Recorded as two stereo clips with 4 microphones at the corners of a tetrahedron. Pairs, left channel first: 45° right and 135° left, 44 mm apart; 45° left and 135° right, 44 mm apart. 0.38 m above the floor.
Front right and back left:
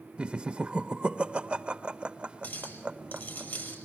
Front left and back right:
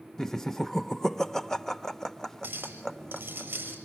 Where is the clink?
85° right, 6 m.